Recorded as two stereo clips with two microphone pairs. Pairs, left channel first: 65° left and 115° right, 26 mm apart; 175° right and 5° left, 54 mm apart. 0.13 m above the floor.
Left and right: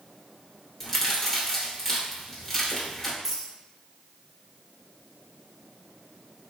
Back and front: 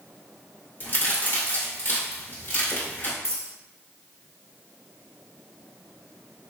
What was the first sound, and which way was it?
A crack, 155° left.